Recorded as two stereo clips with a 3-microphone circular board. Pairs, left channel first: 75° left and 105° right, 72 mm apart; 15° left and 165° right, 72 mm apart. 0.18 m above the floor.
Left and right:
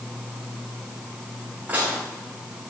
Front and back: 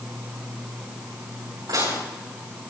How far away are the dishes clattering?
About 10 m.